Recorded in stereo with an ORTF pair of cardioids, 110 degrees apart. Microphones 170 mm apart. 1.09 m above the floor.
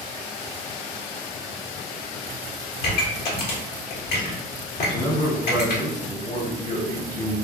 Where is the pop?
65° left, 1.1 m.